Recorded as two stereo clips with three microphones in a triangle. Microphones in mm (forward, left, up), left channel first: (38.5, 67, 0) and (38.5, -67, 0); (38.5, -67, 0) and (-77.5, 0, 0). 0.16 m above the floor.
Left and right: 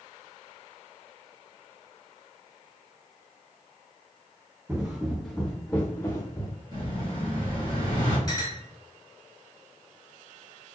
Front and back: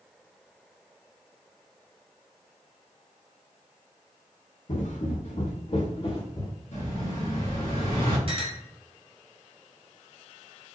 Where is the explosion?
35° right, 2 m.